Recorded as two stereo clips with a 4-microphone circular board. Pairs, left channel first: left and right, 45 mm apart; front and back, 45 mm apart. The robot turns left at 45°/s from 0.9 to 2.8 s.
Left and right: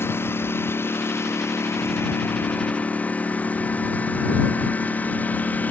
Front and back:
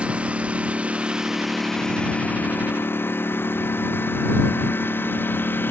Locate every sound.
0.0 s a lawn mower: 115° left; by 5.7 s 40° left